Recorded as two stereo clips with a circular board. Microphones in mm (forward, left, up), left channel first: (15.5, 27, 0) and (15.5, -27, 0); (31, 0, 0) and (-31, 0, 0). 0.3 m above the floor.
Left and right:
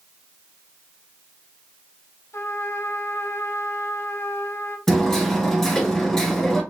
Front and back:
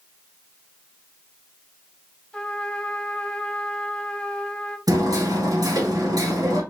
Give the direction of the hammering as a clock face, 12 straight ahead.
6 o'clock.